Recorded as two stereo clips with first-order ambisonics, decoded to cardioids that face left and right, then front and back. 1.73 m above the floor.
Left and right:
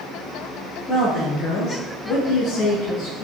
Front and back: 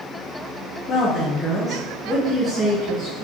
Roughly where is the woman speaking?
Ahead left.